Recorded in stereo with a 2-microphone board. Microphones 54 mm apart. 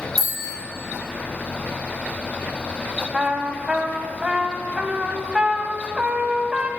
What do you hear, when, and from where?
0.2 s a bicycle bell: 80° left, 4 m
3.1 s a trumpet: 15° right (ahead or behind), 1.0 m